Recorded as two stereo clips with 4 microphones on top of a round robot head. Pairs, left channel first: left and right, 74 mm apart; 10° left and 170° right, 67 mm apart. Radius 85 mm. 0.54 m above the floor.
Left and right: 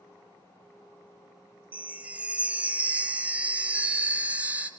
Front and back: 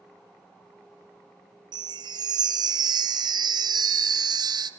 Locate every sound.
1.7 s a chime: 165° right, 1.1 m